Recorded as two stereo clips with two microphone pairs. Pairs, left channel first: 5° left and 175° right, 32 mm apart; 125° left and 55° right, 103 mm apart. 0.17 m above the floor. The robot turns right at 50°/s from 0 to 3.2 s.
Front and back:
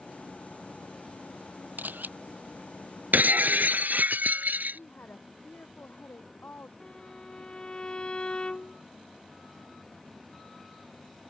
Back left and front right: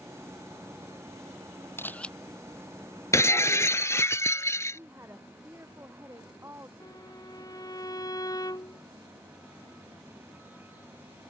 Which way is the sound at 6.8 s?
70° left.